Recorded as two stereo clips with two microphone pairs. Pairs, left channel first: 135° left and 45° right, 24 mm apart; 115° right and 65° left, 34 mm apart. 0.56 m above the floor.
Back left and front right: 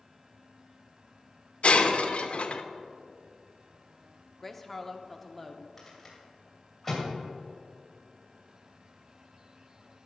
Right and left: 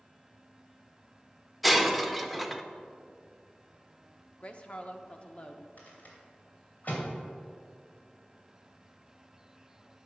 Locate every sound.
1.6 s breaking glass: 155° left, 0.7 m
4.4 s a woman speaking: 145° right, 0.8 m
5.8 s a rattle: 145° right, 2.5 m